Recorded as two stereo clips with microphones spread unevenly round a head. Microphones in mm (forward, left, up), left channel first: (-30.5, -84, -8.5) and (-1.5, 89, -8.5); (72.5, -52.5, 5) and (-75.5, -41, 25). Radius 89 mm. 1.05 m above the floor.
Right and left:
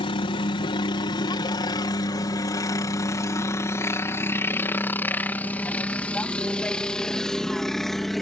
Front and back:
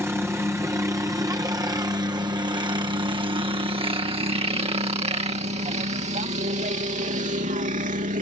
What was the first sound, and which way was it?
A helicopter, 115° right.